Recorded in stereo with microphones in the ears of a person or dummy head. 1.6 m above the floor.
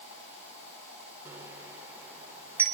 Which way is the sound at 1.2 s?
15° right (ahead or behind).